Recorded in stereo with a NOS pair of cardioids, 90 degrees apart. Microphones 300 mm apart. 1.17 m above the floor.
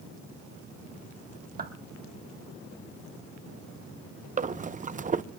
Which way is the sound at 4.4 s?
25° right.